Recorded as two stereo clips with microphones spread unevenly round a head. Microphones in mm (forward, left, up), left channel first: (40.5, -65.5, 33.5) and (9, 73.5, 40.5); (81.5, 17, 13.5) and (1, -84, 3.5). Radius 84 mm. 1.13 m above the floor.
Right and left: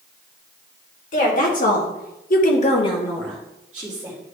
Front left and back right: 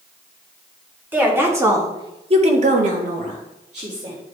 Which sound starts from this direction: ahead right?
A woman speaking, at 1.1 s.